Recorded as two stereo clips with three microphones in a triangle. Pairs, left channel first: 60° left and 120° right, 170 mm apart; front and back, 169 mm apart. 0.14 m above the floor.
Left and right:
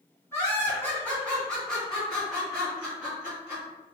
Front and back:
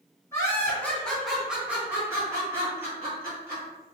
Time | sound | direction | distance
0.3 | laughter | 20° left | 1.7 m